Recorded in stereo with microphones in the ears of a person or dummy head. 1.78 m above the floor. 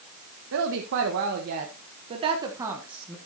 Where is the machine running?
I don't hear a machine running.